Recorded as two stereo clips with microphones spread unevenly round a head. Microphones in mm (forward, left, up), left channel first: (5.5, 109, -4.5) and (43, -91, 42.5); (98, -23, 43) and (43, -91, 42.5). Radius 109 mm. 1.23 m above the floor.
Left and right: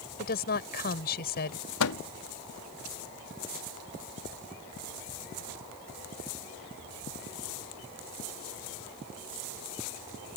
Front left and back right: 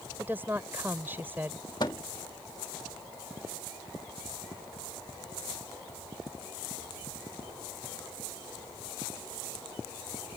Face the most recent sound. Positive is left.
turn(degrees=115)